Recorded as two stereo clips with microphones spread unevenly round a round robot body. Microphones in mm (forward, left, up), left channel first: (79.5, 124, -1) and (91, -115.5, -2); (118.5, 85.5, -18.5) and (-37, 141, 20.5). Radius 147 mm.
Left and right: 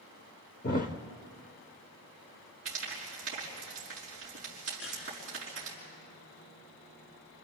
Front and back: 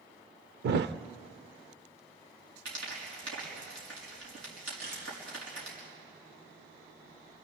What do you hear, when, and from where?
0.6 s a thud: 155° left, 0.6 m
2.6 s frying: 150° right, 4.5 m
4.8 s a camera shutter: 140° left, 9 m